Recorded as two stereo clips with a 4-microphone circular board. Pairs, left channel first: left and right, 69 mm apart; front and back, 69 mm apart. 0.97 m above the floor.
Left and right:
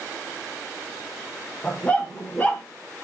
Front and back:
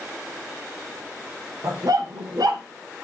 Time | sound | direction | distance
1.6 | a dog barking | 160° left | 1.3 m